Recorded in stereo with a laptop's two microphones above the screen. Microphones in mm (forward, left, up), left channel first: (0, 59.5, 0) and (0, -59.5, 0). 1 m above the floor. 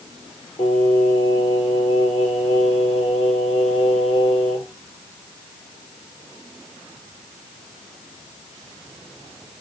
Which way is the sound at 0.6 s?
55° left (ahead or behind).